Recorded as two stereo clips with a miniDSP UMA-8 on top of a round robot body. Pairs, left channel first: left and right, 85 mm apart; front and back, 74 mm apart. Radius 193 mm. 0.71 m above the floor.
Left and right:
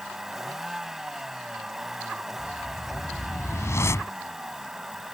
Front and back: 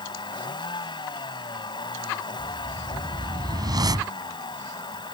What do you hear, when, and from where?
0.0 s a vehicle: 5° right
2.4 s a whoosh: 150° left